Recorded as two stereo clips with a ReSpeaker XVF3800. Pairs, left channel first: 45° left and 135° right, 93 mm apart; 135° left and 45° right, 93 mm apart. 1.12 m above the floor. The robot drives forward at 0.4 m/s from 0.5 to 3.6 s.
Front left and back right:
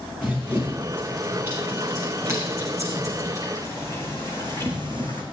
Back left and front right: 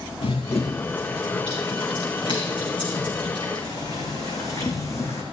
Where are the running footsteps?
155° left, 5 m; by 5.2 s 165° right, 3 m.